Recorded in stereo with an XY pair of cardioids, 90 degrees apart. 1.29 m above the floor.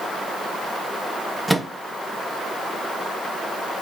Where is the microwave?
10° right, 0.5 m.